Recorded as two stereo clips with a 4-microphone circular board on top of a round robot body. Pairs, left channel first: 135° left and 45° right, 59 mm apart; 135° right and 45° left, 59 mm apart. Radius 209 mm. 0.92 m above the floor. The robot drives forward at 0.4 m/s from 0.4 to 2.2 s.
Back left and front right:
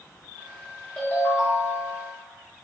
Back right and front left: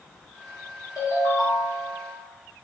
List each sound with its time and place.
1.0 s a ringtone: 145° right, 1.3 m; by 2.1 s 155° right, 1.7 m